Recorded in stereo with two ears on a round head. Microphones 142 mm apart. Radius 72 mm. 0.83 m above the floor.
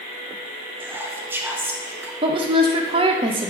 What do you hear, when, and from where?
0.8 s whispering: 15° right (ahead or behind), 0.5 m
2.2 s a woman speaking: 35° right (ahead or behind), 0.6 m